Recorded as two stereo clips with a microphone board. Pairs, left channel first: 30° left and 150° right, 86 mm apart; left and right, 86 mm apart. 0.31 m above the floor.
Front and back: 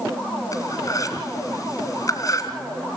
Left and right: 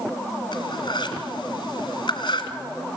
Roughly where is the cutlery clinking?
Left.